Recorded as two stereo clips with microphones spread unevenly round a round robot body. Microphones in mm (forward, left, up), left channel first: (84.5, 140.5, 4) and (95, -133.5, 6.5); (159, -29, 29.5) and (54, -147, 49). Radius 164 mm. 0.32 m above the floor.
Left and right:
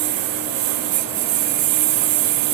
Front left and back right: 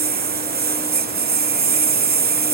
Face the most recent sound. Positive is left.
turn(degrees=-115)